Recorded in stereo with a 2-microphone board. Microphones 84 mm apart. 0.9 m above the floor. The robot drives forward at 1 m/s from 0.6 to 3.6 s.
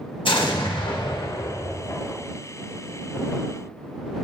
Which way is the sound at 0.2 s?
80° left.